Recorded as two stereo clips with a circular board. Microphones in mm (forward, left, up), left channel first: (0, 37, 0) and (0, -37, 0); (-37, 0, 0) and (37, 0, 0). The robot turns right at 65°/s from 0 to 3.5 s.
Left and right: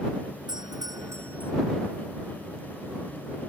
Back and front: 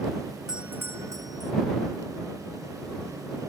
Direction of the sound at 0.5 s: 80° right.